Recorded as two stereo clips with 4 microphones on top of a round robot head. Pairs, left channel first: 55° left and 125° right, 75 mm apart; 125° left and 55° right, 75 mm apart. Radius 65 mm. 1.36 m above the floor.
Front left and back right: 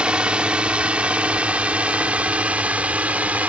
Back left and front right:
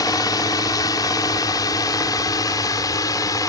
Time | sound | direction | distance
0.0 | a drone | 160° left | ?